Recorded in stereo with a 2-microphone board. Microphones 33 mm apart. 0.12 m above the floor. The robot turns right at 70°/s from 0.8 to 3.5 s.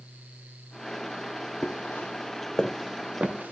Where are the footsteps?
55° left (ahead or behind), 0.6 m; by 3.5 s 80° right, 1.2 m.